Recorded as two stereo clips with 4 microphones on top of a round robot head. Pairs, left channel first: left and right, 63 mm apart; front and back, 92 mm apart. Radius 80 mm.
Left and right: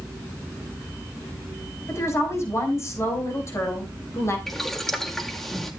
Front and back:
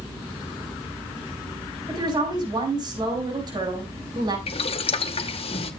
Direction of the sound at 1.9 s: 135° left.